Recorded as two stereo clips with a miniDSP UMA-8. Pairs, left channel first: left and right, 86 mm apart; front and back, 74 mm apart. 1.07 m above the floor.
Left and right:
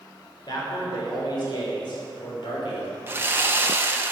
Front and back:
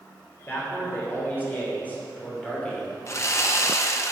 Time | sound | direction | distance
0.5 | a man speaking | 60° left | 3.5 m
3.1 | sawing | 35° right | 0.8 m